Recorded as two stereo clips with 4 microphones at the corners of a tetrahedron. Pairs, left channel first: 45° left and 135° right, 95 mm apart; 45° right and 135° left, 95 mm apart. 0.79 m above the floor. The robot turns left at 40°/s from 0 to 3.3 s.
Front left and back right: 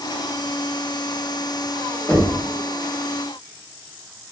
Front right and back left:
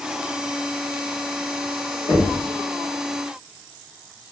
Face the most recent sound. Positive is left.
turn(degrees=-70)